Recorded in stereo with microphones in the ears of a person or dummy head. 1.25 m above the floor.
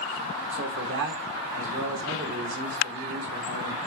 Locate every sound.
0.5 s a man speaking: 55° right (ahead or behind), 1.3 m